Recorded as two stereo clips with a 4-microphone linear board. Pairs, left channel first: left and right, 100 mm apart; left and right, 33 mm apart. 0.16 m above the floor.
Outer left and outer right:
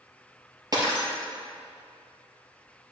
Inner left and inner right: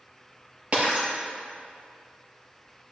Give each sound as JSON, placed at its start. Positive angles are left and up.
{"t": 0.7, "sound": "breaking glass", "side_deg": -40, "distance_m": 2.0}